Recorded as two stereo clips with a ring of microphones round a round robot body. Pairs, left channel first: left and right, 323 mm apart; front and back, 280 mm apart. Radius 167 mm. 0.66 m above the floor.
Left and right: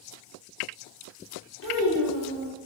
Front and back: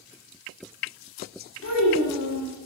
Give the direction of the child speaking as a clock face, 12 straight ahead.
11 o'clock.